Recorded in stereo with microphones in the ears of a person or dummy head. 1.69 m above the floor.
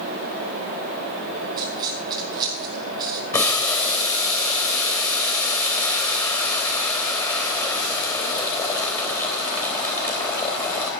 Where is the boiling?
15° left (ahead or behind), 3.5 m.